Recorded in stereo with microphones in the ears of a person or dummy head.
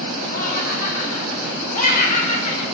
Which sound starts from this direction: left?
Laughter, at 0.3 s.